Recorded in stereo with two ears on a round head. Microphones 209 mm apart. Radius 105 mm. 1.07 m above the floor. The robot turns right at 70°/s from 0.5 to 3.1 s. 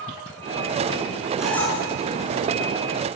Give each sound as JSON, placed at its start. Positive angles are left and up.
{"t": 1.4, "sound": "a squeak", "side_deg": -5, "distance_m": 7.0}